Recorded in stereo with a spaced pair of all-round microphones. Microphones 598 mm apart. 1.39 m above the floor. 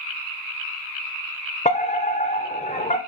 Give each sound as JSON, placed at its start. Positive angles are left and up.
{"t": 1.6, "sound": "a fire alarm", "side_deg": 10, "distance_m": 0.8}